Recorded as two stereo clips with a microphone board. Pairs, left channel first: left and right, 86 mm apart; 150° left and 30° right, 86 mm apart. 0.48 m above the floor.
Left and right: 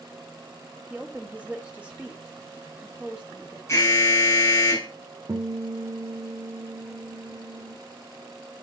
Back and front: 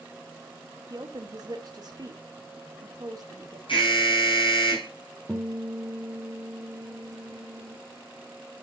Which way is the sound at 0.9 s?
20° right.